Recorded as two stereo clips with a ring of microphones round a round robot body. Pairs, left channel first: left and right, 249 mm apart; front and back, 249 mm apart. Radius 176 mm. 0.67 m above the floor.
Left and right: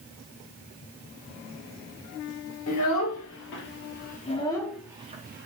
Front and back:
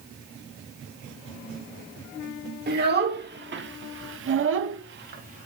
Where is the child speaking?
130° left, 1.4 m; by 5.5 s 120° right, 0.5 m.